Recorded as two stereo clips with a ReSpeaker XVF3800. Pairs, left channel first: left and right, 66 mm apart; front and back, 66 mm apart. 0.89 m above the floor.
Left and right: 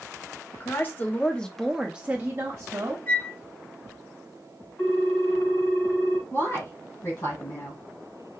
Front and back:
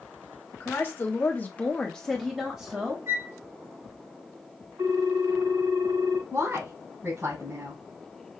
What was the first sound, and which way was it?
A woman speaking, 50° left.